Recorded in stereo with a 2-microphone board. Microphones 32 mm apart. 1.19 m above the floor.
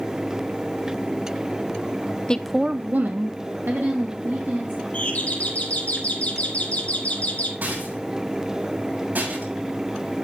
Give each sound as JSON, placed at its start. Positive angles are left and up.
{"t": 2.3, "sound": "a woman speaking", "side_deg": 25, "distance_m": 0.6}
{"t": 4.9, "sound": "a doorbell", "side_deg": 50, "distance_m": 3.0}
{"t": 7.6, "sound": "a rattle", "side_deg": -65, "distance_m": 7.0}